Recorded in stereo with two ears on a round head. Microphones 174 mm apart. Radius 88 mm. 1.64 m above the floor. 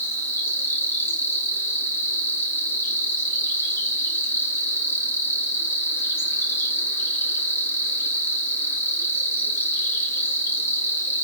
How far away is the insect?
About 1.9 m.